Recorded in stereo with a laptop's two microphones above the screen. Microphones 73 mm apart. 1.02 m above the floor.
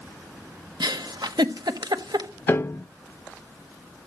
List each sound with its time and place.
0.8 s a giggle: 75° right (ahead or behind), 1.1 m
2.5 s a piano: 30° left (ahead or behind), 0.7 m